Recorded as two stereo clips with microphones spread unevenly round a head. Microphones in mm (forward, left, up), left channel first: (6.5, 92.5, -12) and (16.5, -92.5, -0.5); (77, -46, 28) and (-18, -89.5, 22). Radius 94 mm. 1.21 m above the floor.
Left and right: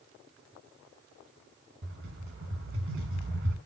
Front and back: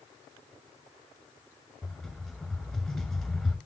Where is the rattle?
65° right, 7.5 m.